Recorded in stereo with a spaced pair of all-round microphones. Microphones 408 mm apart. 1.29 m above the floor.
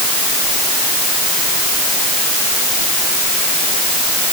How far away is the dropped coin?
No dropped coin in this recording.